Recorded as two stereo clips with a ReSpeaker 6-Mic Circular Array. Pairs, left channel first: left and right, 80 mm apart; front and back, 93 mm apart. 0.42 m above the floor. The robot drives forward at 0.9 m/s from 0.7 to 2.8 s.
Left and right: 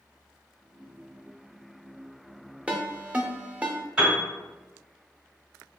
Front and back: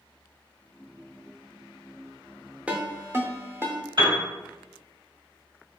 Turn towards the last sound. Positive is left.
turn(degrees=-170)